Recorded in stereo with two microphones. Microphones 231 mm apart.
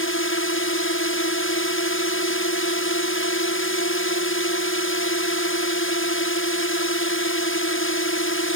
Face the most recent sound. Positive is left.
turn(degrees=65)  # may be behind; listen again after turning